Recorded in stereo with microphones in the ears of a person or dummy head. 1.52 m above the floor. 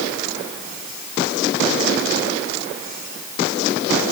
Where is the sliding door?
I don't hear a sliding door.